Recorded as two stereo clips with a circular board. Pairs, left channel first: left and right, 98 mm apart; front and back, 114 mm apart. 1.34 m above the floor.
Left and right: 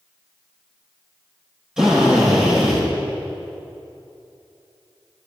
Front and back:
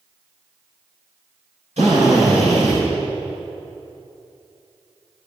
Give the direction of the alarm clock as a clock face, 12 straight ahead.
I don't hear an alarm clock.